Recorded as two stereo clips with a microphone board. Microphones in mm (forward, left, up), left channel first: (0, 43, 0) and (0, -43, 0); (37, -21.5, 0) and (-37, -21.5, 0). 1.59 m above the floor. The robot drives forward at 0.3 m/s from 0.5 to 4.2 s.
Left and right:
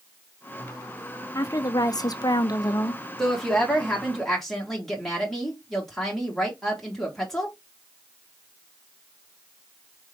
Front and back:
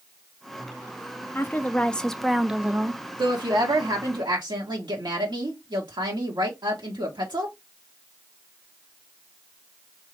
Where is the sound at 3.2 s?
175° left, 1.3 m.